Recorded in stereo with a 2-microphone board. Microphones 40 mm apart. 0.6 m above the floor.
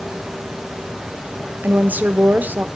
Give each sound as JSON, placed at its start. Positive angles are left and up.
{"t": 1.6, "sound": "a woman speaking", "side_deg": -50, "distance_m": 1.3}